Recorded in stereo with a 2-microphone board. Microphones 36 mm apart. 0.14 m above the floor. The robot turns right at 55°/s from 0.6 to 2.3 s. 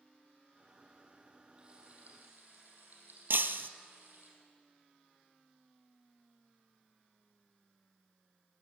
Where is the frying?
155° right, 5.5 m; by 4.3 s 115° right, 5.5 m.